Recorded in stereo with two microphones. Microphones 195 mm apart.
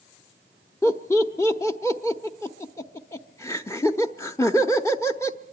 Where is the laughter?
15° left (ahead or behind), 0.8 m.